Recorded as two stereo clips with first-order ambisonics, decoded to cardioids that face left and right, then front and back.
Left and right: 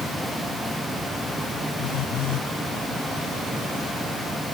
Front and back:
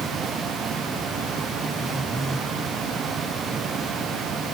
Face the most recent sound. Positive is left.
turn(degrees=95)